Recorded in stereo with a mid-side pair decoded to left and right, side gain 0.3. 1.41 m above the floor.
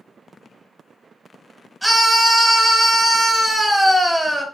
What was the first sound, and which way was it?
A scream, 5° right.